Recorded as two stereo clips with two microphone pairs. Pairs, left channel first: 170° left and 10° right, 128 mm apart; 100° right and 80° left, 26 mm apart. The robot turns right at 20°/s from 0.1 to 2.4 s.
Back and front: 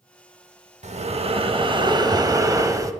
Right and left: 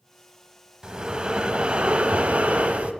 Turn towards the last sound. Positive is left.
turn(degrees=50)